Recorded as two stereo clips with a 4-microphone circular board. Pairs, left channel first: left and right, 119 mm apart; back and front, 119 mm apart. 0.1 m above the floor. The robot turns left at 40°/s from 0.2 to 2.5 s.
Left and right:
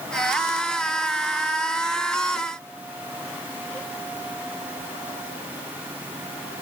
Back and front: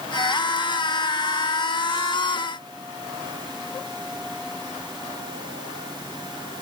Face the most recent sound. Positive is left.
No sound to turn to.